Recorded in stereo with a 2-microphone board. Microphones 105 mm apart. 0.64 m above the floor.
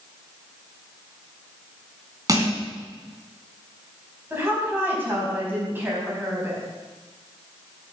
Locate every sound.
2.3 s crushing: 35° right (ahead or behind), 3.5 m
4.3 s a woman speaking: 20° right (ahead or behind), 5 m